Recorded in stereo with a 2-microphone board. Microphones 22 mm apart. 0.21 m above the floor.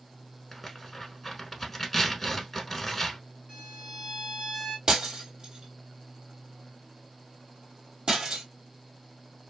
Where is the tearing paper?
5° left (ahead or behind), 0.8 m.